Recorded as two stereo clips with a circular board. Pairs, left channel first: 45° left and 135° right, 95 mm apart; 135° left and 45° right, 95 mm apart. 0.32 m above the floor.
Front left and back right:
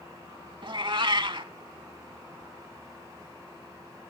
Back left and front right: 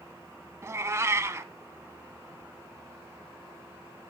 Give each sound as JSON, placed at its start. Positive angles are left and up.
{"t": 0.6, "sound": "a cat meowing", "azimuth_deg": -105, "distance_m": 0.7}